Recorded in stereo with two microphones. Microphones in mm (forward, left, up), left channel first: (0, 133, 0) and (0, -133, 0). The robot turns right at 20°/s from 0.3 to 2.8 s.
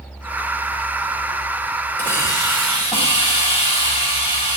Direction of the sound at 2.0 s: 10° left (ahead or behind).